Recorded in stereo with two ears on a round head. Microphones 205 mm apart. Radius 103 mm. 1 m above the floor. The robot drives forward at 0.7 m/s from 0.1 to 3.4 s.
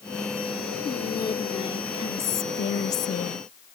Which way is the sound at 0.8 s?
15° left (ahead or behind).